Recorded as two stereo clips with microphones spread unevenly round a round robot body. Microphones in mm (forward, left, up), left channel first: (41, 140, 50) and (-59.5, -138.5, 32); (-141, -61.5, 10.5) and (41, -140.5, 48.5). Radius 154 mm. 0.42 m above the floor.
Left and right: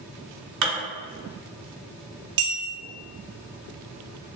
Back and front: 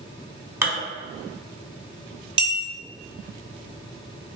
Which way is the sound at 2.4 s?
95° right.